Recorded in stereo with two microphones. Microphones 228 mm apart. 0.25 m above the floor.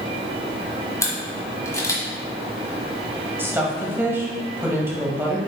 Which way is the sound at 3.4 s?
10° right (ahead or behind).